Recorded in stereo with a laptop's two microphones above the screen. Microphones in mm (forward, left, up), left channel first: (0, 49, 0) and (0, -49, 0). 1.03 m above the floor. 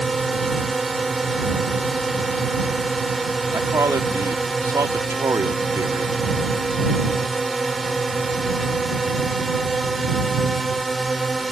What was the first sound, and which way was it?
A drone, centre (ahead or behind).